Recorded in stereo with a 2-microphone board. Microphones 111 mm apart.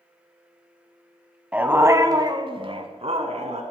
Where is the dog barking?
10° right (ahead or behind), 1.0 m; by 3.6 s 75° right (ahead or behind), 1.5 m.